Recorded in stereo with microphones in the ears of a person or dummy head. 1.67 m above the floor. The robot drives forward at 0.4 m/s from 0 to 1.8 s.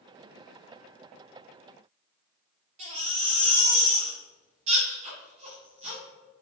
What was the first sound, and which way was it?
A baby crying, 40° right (ahead or behind).